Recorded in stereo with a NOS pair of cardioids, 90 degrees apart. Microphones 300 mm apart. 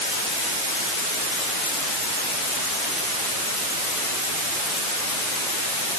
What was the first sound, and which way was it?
Only background noise.